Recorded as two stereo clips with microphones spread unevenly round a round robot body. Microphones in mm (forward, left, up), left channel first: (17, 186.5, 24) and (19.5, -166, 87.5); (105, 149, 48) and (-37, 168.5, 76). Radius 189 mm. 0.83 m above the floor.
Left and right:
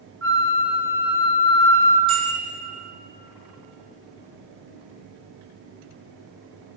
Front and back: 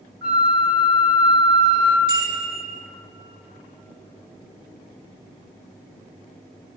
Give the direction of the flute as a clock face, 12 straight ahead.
5 o'clock.